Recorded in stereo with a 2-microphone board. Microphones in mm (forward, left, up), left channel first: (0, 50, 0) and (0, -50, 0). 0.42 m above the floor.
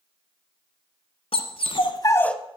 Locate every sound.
1.3 s a dog barking: 75° left (ahead or behind), 1.4 m; by 2.4 s 5° left (ahead or behind), 0.7 m